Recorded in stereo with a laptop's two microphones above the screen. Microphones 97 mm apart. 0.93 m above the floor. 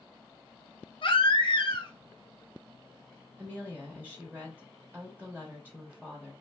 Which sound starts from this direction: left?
A baby crying, at 1.0 s.